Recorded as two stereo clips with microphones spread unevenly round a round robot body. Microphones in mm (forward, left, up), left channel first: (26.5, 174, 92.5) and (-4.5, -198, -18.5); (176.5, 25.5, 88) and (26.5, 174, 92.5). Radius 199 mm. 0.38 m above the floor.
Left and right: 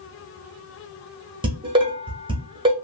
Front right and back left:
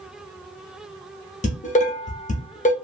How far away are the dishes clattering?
About 0.8 m.